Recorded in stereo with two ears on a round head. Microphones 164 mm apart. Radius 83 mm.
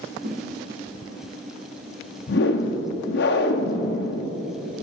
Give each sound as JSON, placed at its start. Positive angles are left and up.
{"t": 0.2, "sound": "a whoosh", "side_deg": -50, "distance_m": 1.2}
{"t": 2.3, "sound": "a whoosh", "side_deg": 65, "distance_m": 0.6}